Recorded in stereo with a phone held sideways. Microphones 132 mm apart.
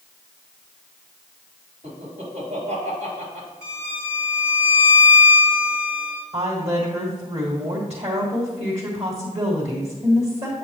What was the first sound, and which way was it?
Laughter, 70° right (ahead or behind).